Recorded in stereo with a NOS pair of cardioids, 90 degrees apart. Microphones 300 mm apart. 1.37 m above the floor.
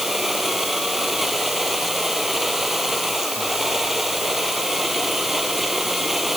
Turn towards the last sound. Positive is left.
turn(degrees=0)